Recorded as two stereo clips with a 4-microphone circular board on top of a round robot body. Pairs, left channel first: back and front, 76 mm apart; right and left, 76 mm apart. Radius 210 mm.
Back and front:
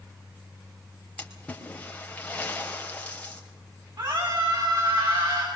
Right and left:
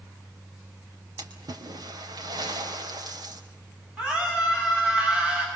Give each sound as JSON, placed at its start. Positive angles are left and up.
{"t": 1.2, "sound": "a splash", "azimuth_deg": 105, "distance_m": 4.5}
{"t": 4.0, "sound": "a scream", "azimuth_deg": 15, "distance_m": 7.5}